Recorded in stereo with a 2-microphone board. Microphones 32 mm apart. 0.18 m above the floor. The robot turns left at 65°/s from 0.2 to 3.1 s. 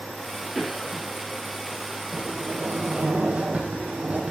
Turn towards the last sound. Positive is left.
turn(degrees=-130)